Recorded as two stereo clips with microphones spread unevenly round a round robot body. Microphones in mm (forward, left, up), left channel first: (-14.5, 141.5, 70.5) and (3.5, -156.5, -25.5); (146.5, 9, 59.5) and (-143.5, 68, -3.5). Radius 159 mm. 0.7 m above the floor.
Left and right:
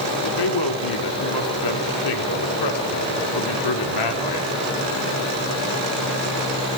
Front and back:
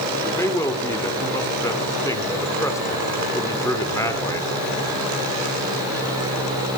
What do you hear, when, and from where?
0.2 s a man speaking: 75° left, 2.5 m